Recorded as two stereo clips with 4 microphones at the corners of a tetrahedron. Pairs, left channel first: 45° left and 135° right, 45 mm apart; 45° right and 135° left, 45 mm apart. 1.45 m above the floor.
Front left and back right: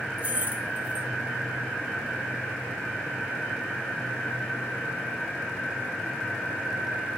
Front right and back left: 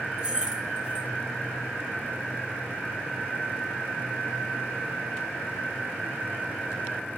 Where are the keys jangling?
165° right, 0.6 m.